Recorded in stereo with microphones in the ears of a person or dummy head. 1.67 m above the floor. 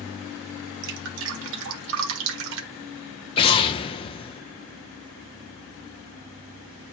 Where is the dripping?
80° right, 1.5 m.